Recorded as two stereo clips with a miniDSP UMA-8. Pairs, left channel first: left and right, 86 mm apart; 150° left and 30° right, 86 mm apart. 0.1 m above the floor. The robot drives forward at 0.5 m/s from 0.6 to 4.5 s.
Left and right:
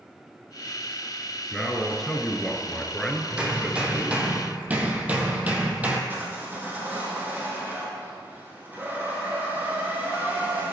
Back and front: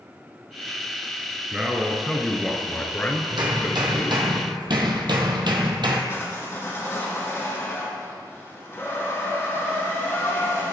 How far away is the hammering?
About 1.8 m.